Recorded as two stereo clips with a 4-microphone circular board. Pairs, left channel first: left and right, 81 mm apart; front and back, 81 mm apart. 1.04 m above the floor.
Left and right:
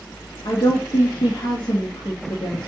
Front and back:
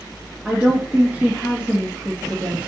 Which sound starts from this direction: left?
A woman speaking, at 0.5 s.